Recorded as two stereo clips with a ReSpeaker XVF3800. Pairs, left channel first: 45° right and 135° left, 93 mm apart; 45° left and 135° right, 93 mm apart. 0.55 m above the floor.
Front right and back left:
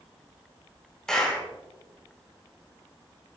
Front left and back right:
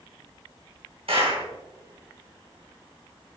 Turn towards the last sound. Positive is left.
turn(degrees=-125)